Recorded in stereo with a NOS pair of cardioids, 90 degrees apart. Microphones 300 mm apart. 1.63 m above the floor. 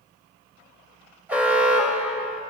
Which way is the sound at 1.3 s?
5° right.